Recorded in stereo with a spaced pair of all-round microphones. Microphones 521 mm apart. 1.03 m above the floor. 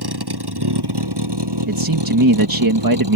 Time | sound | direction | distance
0.0 | a vehicle | 45° right (ahead or behind) | ?
1.7 | a man speaking | 40° right (ahead or behind) | ?